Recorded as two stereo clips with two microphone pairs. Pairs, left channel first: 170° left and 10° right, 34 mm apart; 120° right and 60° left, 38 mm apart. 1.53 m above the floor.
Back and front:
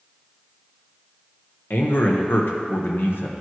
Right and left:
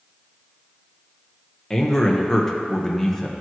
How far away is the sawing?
I don't hear sawing.